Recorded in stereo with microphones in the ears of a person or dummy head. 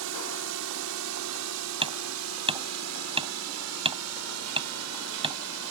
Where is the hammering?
30° right (ahead or behind).